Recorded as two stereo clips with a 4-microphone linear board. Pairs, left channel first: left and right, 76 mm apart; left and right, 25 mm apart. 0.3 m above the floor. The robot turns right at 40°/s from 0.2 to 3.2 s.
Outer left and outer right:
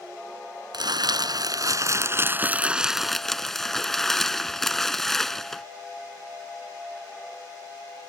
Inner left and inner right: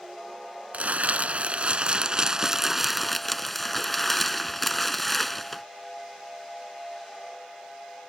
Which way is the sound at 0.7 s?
95° right.